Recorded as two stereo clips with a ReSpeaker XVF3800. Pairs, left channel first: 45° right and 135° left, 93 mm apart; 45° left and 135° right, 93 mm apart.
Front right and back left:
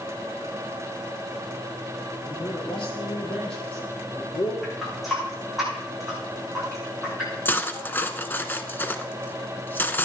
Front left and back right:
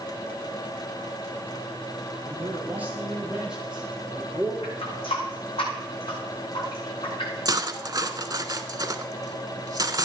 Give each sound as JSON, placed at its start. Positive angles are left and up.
{"t": 2.2, "sound": "a man speaking", "azimuth_deg": -70, "distance_m": 5.0}
{"t": 4.6, "sound": "a running tap", "azimuth_deg": 45, "distance_m": 9.0}
{"t": 7.5, "sound": "cutlery clinking", "azimuth_deg": -105, "distance_m": 0.9}